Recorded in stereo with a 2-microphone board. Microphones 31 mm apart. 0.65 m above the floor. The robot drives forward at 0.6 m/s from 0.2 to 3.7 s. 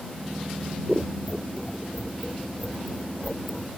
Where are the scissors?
5° left (ahead or behind); by 3.7 s centre (ahead or behind).